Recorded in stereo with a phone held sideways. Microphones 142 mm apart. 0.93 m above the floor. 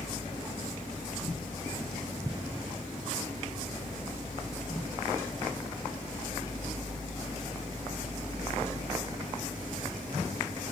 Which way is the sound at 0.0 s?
5° right (ahead or behind).